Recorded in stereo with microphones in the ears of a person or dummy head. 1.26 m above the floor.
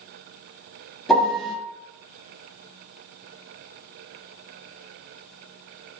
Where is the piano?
Centre (ahead or behind), 1.0 m.